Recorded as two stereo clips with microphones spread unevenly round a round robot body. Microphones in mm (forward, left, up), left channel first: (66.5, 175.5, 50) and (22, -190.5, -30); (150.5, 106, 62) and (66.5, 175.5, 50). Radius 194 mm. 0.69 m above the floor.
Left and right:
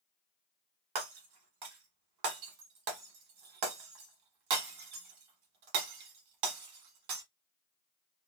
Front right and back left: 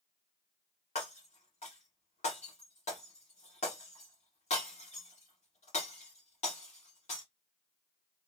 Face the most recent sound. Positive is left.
turn(degrees=-65)